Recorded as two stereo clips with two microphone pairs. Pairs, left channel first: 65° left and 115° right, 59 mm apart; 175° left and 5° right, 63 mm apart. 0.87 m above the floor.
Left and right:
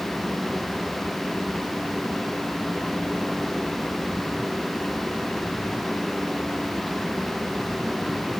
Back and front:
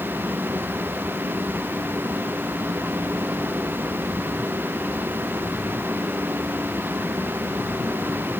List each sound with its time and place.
Only background noise.